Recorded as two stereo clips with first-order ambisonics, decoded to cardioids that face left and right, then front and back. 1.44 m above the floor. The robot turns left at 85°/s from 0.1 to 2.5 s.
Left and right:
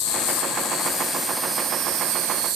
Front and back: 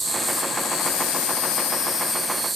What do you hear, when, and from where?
0.0 s an insect: 105° left, 0.7 m; by 2.6 s 100° right, 0.7 m